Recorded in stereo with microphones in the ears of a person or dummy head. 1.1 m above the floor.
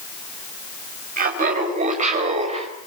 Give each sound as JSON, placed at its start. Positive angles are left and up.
{"t": 1.2, "sound": "laughter", "side_deg": -50, "distance_m": 5.5}